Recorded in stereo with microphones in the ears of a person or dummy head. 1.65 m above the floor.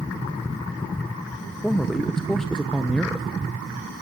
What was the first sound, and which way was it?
A man speaking, centre (ahead or behind).